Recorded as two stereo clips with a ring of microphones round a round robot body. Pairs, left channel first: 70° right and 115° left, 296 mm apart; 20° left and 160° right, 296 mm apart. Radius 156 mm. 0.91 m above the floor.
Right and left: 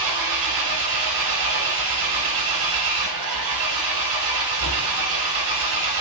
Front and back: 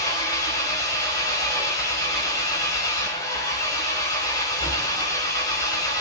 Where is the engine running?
100° left, 3.5 m.